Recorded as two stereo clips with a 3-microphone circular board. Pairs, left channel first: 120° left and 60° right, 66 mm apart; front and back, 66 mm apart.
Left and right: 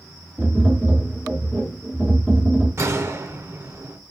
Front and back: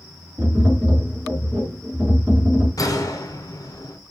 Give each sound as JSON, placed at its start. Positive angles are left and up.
{"t": 0.4, "sound": "tapping", "azimuth_deg": -125, "distance_m": 2.5}
{"t": 2.8, "sound": "a gunshot", "azimuth_deg": -15, "distance_m": 0.7}